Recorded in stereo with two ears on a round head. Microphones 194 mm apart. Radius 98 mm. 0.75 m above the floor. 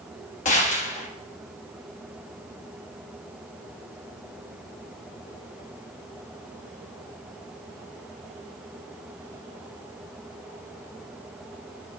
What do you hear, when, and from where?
0.5 s a gunshot: 35° left (ahead or behind), 1.0 m